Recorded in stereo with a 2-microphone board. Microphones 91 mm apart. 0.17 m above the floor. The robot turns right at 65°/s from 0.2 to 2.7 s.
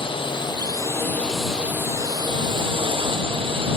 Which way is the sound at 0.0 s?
100° left.